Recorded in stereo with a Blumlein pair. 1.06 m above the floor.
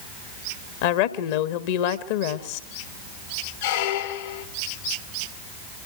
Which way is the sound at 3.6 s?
55° left.